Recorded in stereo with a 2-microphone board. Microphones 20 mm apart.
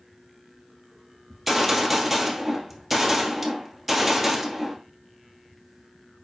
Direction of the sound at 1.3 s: 5° right (ahead or behind).